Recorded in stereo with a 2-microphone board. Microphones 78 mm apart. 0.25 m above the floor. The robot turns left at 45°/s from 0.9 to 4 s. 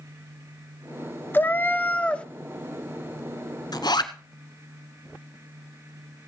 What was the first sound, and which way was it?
A cat meowing, 25° left (ahead or behind).